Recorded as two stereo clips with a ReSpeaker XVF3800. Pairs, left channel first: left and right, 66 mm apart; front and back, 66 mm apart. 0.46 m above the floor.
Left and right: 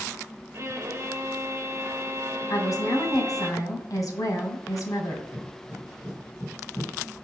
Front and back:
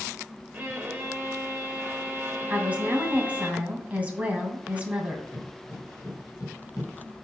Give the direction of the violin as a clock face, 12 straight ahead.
4 o'clock.